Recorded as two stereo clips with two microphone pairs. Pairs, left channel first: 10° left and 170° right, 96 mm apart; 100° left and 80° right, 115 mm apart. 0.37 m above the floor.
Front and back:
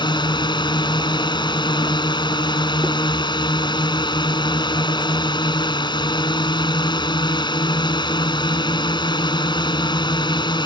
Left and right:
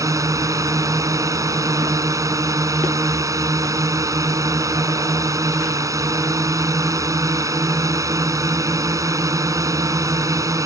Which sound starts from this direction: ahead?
A drone, at 0.0 s.